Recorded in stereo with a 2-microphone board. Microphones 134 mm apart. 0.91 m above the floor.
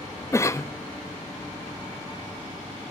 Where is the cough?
20° left (ahead or behind), 0.5 m.